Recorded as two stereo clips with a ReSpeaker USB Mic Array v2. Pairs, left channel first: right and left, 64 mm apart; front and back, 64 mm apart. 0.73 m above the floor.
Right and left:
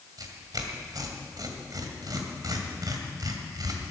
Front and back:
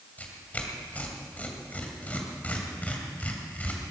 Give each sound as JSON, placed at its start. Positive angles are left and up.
{"t": 0.2, "sound": "tearing paper", "azimuth_deg": 65, "distance_m": 2.0}